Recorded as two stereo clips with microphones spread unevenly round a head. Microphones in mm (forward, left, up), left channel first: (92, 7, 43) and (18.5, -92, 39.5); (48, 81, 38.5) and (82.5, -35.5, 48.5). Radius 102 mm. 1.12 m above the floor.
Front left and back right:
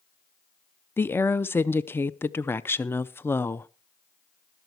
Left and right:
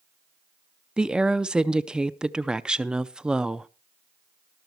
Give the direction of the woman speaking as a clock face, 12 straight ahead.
12 o'clock.